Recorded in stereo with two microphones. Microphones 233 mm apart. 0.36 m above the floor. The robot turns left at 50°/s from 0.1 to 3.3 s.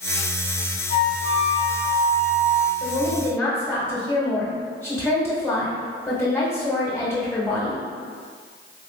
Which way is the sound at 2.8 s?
15° left (ahead or behind).